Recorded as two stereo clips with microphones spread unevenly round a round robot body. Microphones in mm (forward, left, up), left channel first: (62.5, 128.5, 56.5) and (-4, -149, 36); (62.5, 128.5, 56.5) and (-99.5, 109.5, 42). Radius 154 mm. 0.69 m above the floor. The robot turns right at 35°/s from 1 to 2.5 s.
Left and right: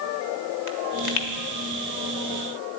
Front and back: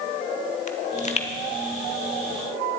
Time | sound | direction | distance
0.7 | a pop | 55° left | 1.6 m